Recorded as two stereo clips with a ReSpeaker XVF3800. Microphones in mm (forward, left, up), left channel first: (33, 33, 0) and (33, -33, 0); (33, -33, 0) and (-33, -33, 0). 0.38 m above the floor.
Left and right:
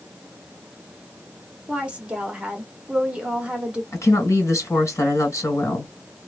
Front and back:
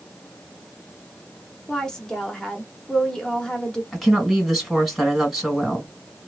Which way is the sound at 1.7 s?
60° right.